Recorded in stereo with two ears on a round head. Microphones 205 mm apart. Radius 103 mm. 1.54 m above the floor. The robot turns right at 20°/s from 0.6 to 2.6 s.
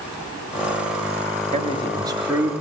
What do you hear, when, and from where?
1.5 s a man speaking: 30° right (ahead or behind), 3.5 m; by 2.5 s 10° right (ahead or behind), 3.5 m